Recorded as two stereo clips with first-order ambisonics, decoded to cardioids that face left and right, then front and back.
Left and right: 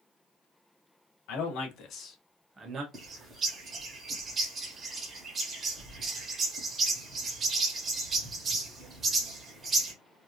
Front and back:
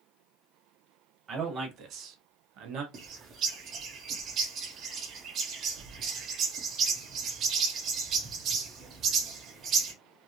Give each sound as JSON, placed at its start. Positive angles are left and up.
{"t": 1.3, "sound": "a man speaking", "azimuth_deg": 120, "distance_m": 1.4}
{"t": 2.9, "sound": "a bird", "azimuth_deg": -145, "distance_m": 0.8}